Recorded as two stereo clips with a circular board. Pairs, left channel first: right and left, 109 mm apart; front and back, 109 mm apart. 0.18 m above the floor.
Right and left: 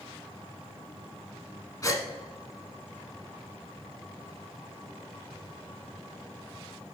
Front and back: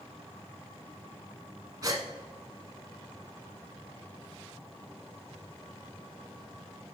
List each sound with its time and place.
1.8 s a gasp: 135° right, 0.9 m